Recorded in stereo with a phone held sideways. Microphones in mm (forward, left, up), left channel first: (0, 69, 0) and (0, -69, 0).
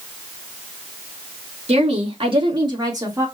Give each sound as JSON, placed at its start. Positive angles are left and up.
{"t": 1.7, "sound": "a woman speaking", "side_deg": -50, "distance_m": 1.8}